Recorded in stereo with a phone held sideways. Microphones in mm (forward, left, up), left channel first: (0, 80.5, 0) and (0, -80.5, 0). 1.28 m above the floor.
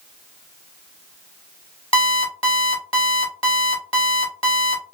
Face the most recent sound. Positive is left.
turn(degrees=35)  # may be behind; listen again after turning